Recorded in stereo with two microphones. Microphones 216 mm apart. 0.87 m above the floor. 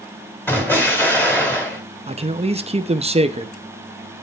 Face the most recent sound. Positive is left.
turn(degrees=-30)  # may be behind; listen again after turning